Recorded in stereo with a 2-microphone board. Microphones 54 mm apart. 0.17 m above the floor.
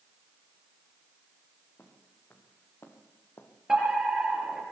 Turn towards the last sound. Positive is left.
turn(degrees=-10)  # may be behind; listen again after turning